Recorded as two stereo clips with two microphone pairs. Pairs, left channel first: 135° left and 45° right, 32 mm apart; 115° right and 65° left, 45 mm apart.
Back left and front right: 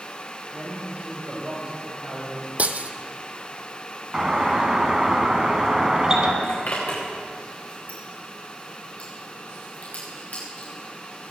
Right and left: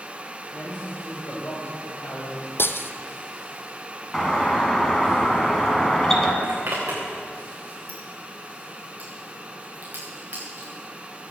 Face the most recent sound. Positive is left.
turn(degrees=110)